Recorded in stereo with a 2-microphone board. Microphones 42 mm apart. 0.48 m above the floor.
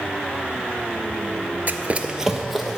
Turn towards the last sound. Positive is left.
turn(degrees=0)  # may be behind; listen again after turning